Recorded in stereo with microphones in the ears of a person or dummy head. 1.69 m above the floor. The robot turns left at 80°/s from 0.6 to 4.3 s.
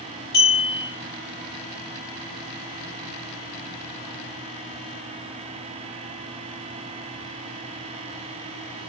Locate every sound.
0.3 s a clink: 20° left (ahead or behind), 0.5 m; by 0.9 s 15° left (ahead or behind), 0.5 m